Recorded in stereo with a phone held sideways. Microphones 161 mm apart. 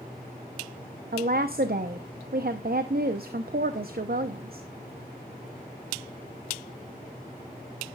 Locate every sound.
1.1 s a woman speaking: 70° right (ahead or behind), 0.7 m